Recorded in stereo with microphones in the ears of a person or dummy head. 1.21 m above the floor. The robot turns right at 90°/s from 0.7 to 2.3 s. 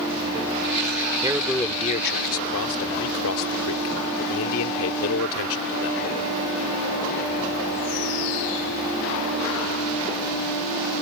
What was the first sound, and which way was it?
A man speaking, 25° right.